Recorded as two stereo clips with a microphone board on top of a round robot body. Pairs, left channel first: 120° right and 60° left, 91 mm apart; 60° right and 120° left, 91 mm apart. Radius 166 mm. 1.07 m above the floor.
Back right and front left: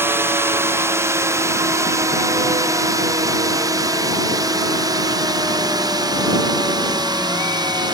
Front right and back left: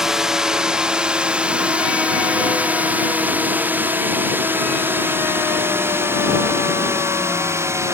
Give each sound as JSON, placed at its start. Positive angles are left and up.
{"t": 0.0, "sound": "a drone", "azimuth_deg": 40}